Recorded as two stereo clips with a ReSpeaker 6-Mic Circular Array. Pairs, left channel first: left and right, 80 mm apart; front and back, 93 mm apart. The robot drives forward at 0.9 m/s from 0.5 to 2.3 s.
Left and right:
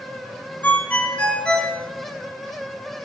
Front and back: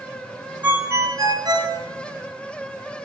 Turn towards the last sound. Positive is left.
turn(degrees=170)